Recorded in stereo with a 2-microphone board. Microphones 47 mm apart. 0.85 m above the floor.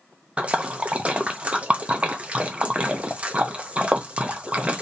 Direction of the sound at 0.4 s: 25° right (ahead or behind).